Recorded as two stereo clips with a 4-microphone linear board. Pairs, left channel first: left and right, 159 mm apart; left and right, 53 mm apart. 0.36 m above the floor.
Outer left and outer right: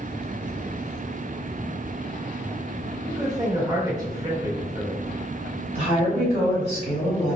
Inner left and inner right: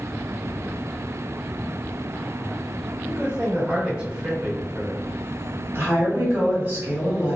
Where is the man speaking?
25° right (ahead or behind), 1.3 m.